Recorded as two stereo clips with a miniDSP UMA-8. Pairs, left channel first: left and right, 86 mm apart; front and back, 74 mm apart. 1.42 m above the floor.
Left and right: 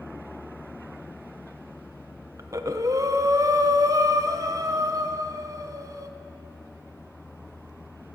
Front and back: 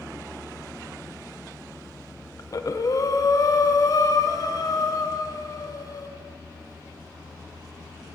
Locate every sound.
2.4 s breathing: 40° right, 0.8 m